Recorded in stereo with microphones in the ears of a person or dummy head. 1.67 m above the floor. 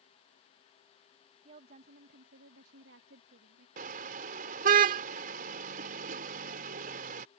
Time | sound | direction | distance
1.4 | a woman speaking | 45° right (ahead or behind) | ?
3.8 | a car horn | 50° right (ahead or behind) | ?